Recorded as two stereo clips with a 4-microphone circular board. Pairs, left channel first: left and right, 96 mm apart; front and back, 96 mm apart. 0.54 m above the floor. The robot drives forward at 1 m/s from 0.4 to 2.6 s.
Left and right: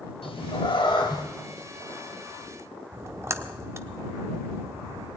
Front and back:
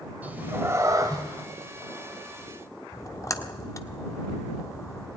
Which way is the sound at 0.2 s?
105° left.